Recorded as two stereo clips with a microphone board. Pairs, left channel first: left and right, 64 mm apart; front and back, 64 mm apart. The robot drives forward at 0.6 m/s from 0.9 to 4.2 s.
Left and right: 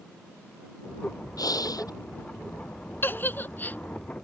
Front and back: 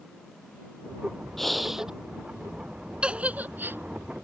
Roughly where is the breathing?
Left.